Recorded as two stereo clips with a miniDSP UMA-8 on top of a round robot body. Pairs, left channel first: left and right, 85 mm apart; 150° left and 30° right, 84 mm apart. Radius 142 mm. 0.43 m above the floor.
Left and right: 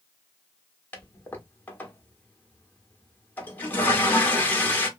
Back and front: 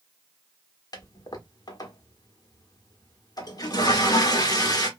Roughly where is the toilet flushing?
Behind left.